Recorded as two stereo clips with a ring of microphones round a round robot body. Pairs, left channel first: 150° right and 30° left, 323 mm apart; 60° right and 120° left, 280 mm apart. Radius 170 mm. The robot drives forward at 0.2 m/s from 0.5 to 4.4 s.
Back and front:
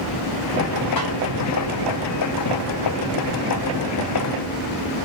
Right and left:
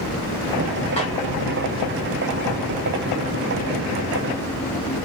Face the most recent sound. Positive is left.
turn(degrees=-145)